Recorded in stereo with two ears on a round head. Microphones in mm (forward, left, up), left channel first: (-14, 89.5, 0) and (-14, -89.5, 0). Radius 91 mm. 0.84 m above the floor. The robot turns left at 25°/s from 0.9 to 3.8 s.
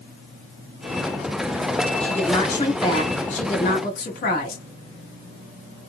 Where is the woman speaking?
175° left, 1.6 m; by 4.7 s 130° left, 1.6 m.